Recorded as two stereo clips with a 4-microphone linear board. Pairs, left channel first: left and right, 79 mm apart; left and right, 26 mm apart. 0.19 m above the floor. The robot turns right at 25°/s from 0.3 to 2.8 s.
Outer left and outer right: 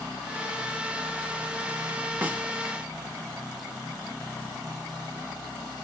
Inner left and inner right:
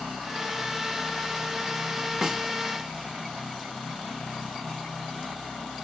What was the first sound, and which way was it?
A snare drum, 20° right (ahead or behind).